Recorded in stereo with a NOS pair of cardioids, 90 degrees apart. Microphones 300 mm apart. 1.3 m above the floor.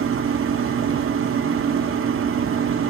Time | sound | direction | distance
0.0 | a machine running | 45° right | 1.9 m